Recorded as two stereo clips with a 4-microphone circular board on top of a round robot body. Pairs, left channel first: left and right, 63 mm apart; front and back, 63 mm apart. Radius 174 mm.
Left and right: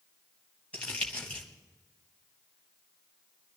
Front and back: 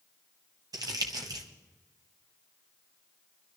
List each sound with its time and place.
0.7 s crumpling: 160° left, 1.3 m